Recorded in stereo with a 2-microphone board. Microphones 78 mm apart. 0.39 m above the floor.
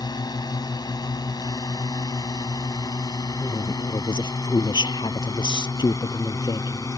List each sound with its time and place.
0.0 s a drone: 65° left (ahead or behind); by 7.0 s 50° left (ahead or behind)
3.4 s a woman speaking: 75° left (ahead or behind)